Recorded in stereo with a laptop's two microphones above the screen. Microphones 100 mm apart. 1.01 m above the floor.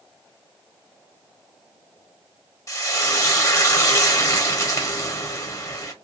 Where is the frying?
30° left (ahead or behind), 0.8 m.